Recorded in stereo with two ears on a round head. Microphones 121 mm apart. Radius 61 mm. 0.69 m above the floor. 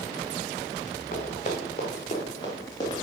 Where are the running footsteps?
50° left (ahead or behind), 4 m; by 3.0 s 25° left (ahead or behind), 5 m.